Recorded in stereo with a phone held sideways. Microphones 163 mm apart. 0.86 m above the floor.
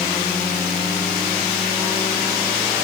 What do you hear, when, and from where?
Only background noise.